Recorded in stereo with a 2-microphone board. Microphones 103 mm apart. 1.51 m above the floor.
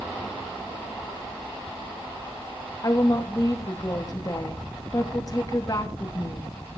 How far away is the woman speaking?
About 2.5 m.